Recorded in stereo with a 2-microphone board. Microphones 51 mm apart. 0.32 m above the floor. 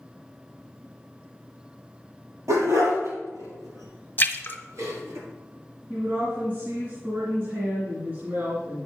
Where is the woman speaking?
40° right (ahead or behind), 2.5 m.